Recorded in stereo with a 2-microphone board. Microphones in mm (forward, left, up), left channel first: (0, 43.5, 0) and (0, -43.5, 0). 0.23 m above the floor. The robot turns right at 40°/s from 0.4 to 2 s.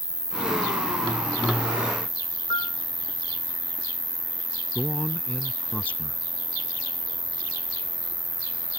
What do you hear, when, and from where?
0.0 s an insect: 100° right; by 8.8 s 35° right
2.5 s a piano: 55° left (ahead or behind)
4.8 s a man speaking: 15° left (ahead or behind)